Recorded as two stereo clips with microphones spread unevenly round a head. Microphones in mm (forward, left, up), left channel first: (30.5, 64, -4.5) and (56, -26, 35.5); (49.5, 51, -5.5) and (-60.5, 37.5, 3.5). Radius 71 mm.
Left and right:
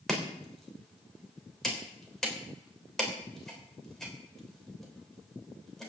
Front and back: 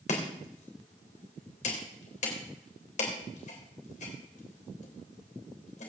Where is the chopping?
15° left, 3 m.